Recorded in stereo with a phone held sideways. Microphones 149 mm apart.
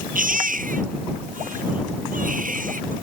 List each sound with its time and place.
0.1 s a baby crying: 65° right (ahead or behind)